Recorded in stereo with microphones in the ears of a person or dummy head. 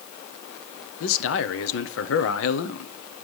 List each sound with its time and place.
1.0 s a man speaking: 80° left, 1.0 m